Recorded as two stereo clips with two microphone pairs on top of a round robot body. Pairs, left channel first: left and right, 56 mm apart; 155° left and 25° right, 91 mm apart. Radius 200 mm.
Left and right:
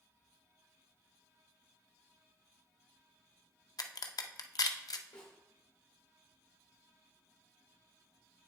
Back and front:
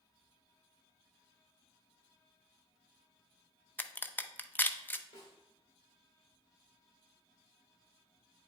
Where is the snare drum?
115° left, 1.2 m.